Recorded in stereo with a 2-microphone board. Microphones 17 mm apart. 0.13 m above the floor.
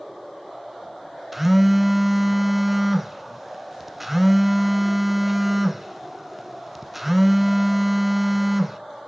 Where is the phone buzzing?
10° right (ahead or behind), 0.6 m.